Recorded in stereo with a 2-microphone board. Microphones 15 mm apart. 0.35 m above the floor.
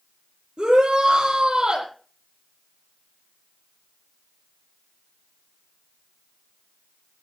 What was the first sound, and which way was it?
A shout, 70° right (ahead or behind).